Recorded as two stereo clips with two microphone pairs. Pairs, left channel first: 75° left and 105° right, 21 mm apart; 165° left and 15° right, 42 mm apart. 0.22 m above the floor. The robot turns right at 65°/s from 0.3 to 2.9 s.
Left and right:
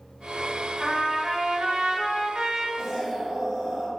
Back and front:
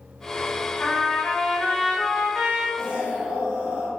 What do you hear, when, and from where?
0.8 s a trumpet: straight behind, 0.6 m; by 2.7 s 60° right, 0.6 m
2.8 s an explosion: 85° right, 1.1 m; by 3.9 s 80° right, 1.1 m